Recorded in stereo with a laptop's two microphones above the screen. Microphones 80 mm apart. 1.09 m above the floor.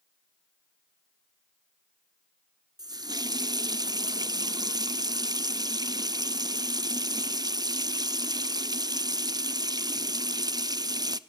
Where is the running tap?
55° right (ahead or behind), 0.7 m.